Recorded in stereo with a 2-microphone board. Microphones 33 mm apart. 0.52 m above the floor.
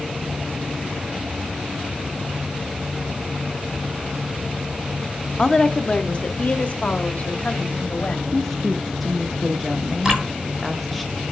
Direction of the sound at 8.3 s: 5° left (ahead or behind).